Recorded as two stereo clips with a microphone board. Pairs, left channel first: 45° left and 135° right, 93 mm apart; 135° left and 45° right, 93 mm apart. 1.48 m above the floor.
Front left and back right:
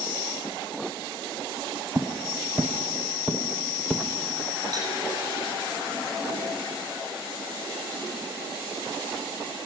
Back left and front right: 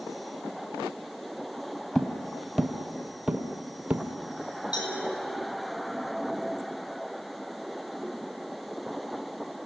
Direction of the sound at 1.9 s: 150° right.